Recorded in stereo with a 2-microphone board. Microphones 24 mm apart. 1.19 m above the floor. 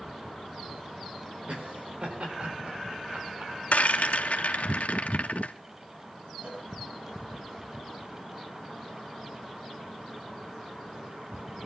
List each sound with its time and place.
1.5 s laughter: 55° right (ahead or behind), 4.5 m
3.7 s a rattle: 75° left (ahead or behind), 1.9 m
6.4 s a cowbell: 50° right (ahead or behind), 6.5 m